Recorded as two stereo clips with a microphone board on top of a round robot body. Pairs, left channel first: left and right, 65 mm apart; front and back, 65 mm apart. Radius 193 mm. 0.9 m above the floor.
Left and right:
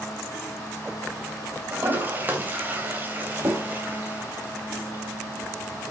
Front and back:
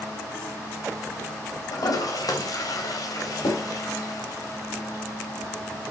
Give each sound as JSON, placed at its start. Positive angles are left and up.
{"t": 1.7, "sound": "a toilet flushing", "azimuth_deg": -25, "distance_m": 3.0}